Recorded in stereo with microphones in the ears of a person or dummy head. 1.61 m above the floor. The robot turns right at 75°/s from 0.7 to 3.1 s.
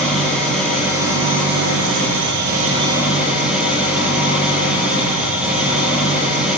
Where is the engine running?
175° left, 9 m; by 6.6 s 5° right, 9 m.